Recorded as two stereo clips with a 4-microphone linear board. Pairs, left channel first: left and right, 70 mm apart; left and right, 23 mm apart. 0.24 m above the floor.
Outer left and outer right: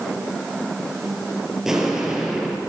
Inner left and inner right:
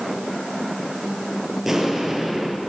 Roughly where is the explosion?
Centre.